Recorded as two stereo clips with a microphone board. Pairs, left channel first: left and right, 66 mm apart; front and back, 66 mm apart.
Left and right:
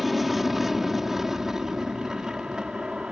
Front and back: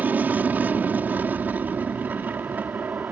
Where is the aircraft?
175° right; by 3.1 s 155° right.